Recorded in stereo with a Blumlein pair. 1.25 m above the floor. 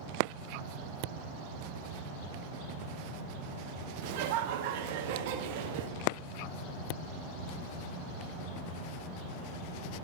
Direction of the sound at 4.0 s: 45° right.